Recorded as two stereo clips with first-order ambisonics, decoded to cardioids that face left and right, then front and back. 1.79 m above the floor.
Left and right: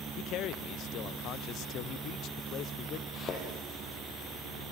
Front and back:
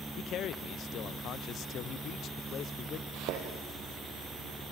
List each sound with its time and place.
0.2 s a man speaking: 50° left, 0.9 m
3.1 s a thud: 150° left, 5.5 m